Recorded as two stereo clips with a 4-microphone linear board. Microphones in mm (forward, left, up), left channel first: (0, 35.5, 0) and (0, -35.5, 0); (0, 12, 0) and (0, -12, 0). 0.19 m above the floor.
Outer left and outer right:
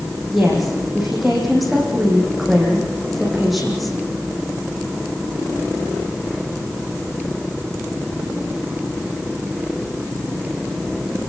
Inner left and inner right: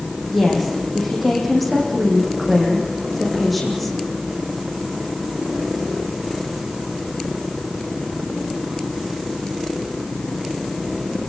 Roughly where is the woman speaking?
Centre.